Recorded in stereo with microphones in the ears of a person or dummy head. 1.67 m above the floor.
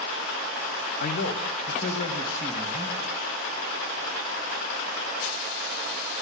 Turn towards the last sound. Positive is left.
turn(degrees=45)  # may be behind; listen again after turning